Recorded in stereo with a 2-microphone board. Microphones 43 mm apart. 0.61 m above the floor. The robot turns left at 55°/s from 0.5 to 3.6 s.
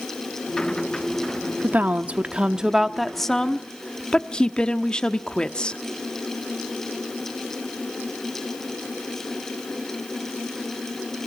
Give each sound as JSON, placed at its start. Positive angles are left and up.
{"t": 1.6, "sound": "a woman speaking", "azimuth_deg": -105, "distance_m": 1.0}